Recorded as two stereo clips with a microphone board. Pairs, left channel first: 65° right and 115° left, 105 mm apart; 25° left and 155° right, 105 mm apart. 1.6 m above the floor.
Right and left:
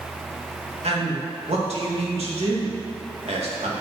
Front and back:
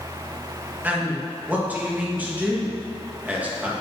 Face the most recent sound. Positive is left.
turn(degrees=130)